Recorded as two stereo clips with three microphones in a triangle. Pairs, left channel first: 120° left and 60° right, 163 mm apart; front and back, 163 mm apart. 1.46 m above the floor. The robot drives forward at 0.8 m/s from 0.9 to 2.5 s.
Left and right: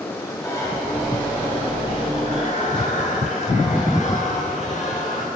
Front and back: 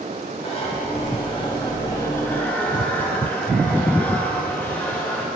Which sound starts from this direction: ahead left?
A zipper, at 0.4 s.